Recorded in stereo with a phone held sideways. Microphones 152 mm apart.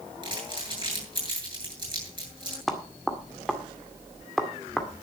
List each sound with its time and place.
0.2 s crumpling: 30° right (ahead or behind), 8.5 m
2.7 s knocking: centre (ahead or behind), 1.8 m